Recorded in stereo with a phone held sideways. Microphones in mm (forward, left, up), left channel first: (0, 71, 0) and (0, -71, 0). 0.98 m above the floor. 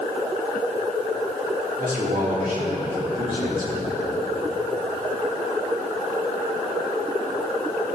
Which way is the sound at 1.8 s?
75° right (ahead or behind).